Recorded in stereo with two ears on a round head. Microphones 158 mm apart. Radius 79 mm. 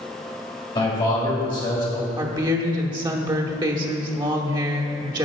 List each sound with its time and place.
0.8 s a man speaking: 25° left (ahead or behind), 2.5 m
2.2 s a woman speaking: 25° right (ahead or behind), 0.8 m